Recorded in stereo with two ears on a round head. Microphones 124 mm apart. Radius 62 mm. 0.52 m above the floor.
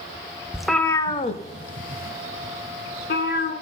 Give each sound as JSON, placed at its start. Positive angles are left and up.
{"t": 0.5, "sound": "a cat meowing", "side_deg": -5, "distance_m": 0.5}